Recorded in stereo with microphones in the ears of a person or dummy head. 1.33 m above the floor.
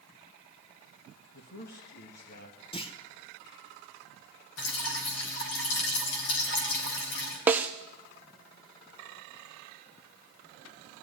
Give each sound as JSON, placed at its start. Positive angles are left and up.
{"t": 1.3, "sound": "a man speaking", "side_deg": 55, "distance_m": 1.7}
{"t": 2.7, "sound": "a clunk", "side_deg": 30, "distance_m": 1.1}
{"t": 4.6, "sound": "dripping", "side_deg": 80, "distance_m": 4.0}
{"t": 7.5, "sound": "a snare drum", "side_deg": -10, "distance_m": 1.0}